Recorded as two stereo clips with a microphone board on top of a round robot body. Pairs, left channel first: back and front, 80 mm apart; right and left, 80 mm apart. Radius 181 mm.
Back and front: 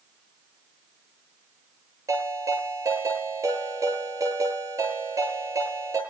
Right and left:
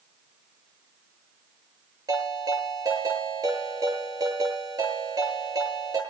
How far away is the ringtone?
About 9.5 m.